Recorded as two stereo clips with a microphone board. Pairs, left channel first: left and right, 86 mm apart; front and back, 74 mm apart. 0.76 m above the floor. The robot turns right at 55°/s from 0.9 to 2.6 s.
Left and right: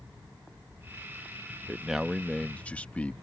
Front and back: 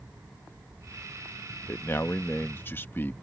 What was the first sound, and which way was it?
A man speaking, 20° right.